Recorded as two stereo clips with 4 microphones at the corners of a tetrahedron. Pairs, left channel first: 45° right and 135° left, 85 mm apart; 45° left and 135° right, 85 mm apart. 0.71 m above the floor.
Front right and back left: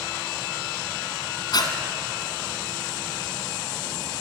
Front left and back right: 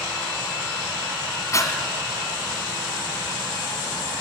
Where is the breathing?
5° right, 2.5 m.